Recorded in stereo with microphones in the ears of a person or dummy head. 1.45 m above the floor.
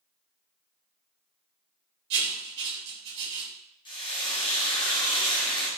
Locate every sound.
2.1 s writing: 55° right (ahead or behind), 1.3 m
3.9 s frying: 25° left (ahead or behind), 0.6 m